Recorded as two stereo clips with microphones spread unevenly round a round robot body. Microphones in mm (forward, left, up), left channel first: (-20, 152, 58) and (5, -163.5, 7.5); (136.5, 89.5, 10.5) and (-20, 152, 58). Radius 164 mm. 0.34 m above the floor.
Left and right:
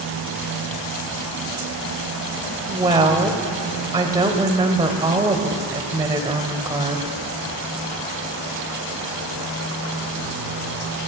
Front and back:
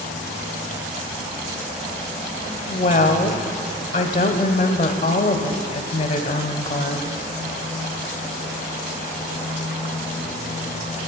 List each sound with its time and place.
2.7 s a woman speaking: 20° right, 1.2 m